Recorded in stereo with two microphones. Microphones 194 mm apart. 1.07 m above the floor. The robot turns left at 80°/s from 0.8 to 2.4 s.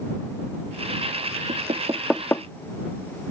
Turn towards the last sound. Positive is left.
turn(degrees=20)  # may be behind; listen again after turning